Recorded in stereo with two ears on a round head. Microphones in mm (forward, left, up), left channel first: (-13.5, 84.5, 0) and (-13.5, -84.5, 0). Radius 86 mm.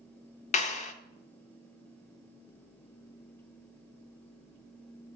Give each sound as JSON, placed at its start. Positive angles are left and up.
{"t": 0.5, "sound": "a clap", "side_deg": 40, "distance_m": 0.7}